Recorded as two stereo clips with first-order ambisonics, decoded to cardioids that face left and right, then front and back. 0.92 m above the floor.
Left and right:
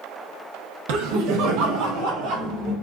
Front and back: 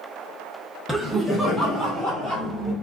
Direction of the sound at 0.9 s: 95° right.